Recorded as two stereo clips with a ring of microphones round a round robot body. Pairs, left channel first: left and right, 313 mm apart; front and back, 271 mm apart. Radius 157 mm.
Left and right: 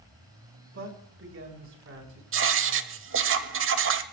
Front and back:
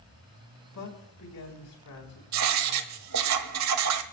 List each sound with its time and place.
0.7 s a man speaking: 40° right, 4.5 m
2.3 s writing: 140° right, 1.1 m